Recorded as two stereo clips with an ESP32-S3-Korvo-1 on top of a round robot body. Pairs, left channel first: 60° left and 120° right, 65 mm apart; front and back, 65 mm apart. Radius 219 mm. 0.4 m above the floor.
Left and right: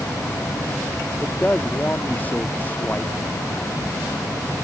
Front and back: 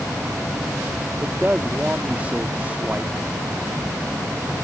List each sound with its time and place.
1.2 s a man speaking: 120° left